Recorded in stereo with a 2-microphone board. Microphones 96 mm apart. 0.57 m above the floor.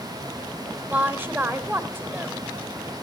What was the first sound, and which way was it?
A woman speaking, 20° right (ahead or behind).